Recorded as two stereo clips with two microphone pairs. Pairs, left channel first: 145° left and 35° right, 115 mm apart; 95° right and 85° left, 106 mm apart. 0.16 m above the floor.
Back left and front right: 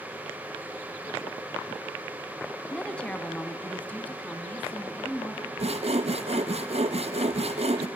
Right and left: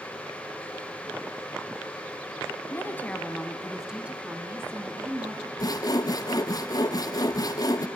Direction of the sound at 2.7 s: 140° right.